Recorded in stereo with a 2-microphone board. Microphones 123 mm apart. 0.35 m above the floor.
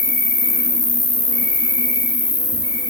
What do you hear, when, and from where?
0.0 s an insect: 40° left (ahead or behind), 0.8 m